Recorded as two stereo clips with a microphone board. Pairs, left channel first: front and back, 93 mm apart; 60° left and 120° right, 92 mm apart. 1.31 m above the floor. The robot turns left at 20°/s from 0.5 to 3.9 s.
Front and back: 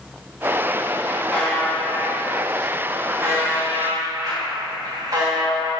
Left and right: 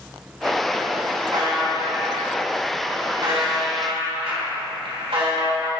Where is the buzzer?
80° right, 2.5 m; by 5.7 s 130° right, 2.5 m.